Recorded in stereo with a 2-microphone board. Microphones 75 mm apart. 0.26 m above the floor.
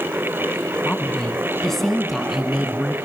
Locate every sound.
0.8 s a woman speaking: 15° left (ahead or behind), 2 m; by 3.0 s 10° right (ahead or behind), 3.5 m